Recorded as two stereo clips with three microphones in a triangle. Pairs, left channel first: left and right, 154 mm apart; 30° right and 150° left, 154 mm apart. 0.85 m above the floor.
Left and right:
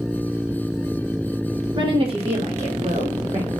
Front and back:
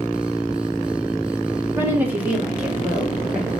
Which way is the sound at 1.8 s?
140° right.